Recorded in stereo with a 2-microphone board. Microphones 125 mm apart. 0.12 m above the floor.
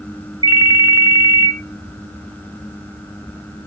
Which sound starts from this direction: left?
A ringtone, at 0.4 s.